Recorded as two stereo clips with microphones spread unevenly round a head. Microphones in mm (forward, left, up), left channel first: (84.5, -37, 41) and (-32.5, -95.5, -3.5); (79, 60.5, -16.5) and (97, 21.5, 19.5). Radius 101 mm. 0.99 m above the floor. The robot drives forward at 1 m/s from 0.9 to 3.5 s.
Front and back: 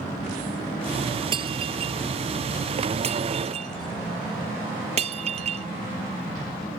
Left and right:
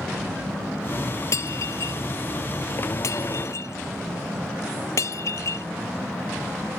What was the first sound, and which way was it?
Breaking glass, 140° left.